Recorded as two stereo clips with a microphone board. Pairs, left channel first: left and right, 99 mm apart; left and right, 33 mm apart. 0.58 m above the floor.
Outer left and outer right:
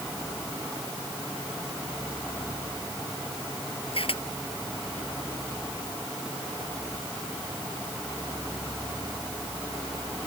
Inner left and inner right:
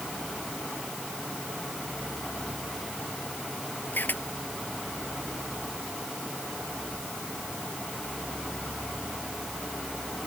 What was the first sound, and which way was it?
A camera shutter, 70° left (ahead or behind).